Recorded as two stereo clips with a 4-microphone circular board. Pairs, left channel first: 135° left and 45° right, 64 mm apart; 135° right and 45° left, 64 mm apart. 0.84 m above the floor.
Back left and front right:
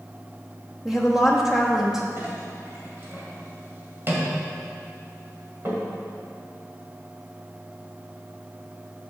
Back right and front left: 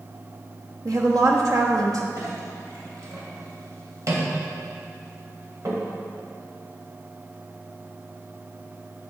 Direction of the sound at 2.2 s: 10° left.